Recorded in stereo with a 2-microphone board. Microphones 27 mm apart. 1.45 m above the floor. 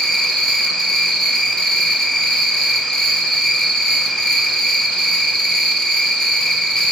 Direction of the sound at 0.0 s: 30° left (ahead or behind).